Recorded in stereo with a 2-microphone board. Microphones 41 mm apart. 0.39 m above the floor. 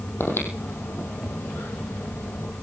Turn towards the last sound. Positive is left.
turn(degrees=80)